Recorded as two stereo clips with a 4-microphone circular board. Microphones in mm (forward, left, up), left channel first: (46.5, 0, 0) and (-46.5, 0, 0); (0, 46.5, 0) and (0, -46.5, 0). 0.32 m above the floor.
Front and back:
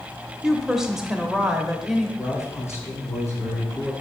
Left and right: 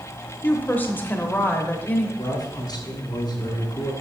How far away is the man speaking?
About 2 m.